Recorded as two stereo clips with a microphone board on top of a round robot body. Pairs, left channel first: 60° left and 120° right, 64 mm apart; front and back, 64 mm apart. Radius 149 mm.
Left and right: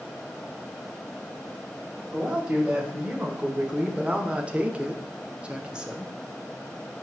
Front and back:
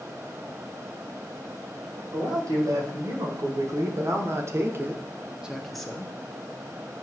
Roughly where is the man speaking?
Behind.